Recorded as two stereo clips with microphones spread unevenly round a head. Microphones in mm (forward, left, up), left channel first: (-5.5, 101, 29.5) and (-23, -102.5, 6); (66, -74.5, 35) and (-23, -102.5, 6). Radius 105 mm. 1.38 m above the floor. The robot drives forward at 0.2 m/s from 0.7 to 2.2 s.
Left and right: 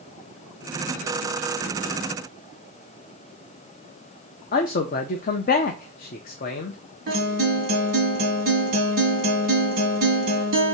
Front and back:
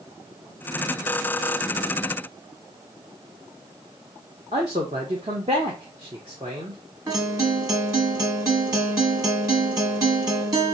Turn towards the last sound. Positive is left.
turn(degrees=-110)